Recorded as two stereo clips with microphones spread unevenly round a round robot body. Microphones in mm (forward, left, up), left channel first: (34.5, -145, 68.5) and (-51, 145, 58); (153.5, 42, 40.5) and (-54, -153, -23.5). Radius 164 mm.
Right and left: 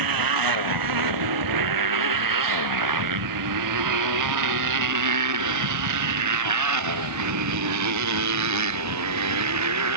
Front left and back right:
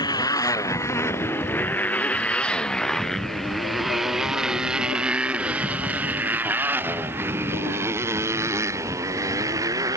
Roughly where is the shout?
I don't hear a shout.